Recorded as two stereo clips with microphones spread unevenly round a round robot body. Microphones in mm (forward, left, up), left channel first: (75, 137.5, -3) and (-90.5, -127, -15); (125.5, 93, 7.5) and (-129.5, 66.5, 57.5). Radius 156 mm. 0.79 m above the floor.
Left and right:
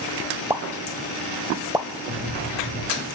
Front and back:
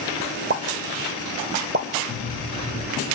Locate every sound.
0.5 s a pop: 155° left, 0.8 m
2.1 s cutlery clinking: 40° right, 7.5 m